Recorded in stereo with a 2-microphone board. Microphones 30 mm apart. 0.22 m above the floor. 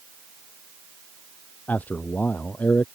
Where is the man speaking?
75° left (ahead or behind).